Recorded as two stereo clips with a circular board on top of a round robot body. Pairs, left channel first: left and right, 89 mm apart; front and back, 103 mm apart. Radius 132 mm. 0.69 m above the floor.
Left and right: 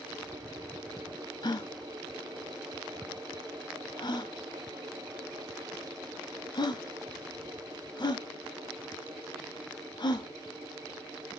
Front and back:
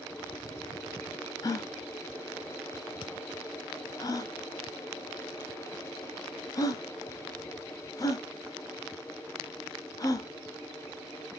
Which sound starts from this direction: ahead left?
A gasp, at 1.4 s.